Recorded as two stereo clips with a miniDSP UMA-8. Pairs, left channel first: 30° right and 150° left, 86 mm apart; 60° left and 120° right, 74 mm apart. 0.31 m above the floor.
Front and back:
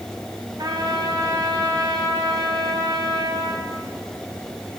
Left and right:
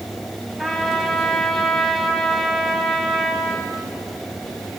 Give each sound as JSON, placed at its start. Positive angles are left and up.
{"t": 0.6, "sound": "a trumpet", "azimuth_deg": 145, "distance_m": 2.5}